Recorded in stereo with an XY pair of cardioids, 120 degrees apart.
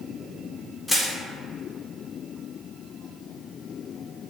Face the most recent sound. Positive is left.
turn(degrees=5)